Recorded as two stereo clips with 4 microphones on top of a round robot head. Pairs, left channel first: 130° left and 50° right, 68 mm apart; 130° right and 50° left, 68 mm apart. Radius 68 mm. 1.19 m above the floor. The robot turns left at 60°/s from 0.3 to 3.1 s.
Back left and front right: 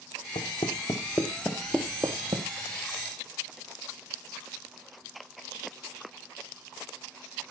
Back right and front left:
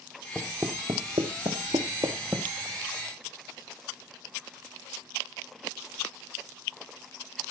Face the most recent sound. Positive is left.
turn(degrees=-65)